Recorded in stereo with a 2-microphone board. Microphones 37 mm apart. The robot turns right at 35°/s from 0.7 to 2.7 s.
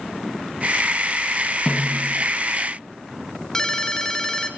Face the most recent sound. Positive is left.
turn(degrees=15)  # may be behind; listen again after turning